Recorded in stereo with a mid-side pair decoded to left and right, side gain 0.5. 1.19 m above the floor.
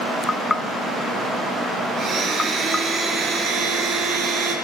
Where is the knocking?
20° left, 0.6 m.